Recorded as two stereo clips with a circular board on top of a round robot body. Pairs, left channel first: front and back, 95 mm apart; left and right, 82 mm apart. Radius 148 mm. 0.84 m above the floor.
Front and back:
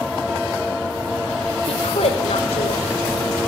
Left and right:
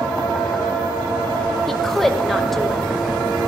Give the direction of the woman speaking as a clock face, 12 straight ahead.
12 o'clock.